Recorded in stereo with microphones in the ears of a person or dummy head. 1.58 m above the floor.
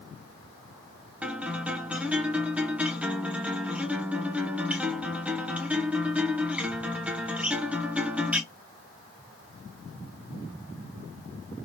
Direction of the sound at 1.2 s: 5° right (ahead or behind).